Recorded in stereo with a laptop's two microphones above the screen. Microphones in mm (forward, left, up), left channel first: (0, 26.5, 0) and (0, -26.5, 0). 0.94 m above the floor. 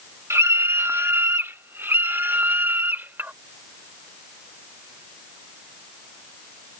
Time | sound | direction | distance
0.3 | a scream | 60° right (ahead or behind) | ?